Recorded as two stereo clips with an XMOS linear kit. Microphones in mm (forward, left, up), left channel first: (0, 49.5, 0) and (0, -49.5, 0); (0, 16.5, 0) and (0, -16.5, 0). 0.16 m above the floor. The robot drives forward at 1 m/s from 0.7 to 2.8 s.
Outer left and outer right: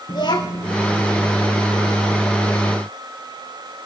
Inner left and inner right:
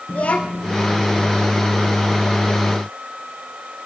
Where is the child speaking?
45° left (ahead or behind), 1.7 m.